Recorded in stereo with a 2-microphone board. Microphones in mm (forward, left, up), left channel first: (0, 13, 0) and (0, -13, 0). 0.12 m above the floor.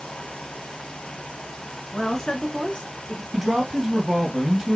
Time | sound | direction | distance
1.9 | a woman speaking | 25° left (ahead or behind) | 1.5 m
3.3 | a man speaking | 15° right (ahead or behind) | 2.5 m